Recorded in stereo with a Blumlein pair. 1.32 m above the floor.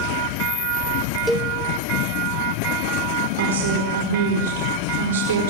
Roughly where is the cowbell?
Ahead.